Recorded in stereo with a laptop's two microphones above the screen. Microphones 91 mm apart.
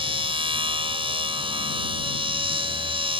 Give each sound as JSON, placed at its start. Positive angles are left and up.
{"t": 0.0, "sound": "a machine running", "side_deg": -80}